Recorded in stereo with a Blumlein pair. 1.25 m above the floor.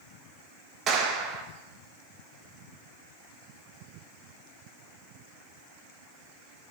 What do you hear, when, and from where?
0.9 s a clap: 30° right, 1.1 m